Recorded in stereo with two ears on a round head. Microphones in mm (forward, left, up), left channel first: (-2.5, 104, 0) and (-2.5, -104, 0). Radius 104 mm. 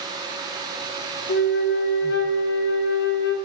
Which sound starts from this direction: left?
A flute, at 1.3 s.